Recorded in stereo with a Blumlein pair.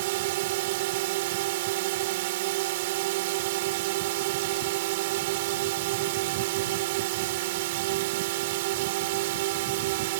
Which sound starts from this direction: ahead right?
A drone, at 0.0 s.